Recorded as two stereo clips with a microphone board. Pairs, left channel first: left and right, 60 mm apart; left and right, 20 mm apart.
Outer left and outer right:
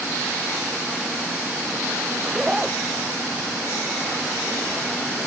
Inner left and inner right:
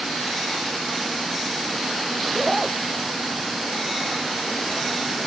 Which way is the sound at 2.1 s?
10° right (ahead or behind).